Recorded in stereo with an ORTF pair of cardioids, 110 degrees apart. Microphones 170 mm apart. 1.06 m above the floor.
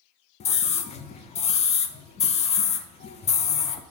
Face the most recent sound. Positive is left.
turn(degrees=40)